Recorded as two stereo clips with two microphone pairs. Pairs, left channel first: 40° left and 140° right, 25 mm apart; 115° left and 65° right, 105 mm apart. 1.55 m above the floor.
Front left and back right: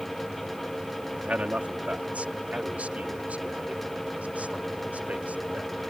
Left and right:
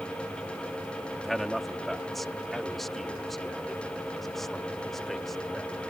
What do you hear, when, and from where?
1.2 s a man speaking: 160° right